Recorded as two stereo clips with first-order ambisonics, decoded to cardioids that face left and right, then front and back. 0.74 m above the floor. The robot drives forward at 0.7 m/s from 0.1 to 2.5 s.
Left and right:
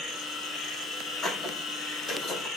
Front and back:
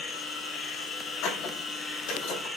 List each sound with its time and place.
0.0 s an insect: 30° left, 2 m; by 2.6 s 100° left, 1.5 m
1.2 s a squeak: 20° left, 2.5 m; by 2.5 s 35° left, 1.8 m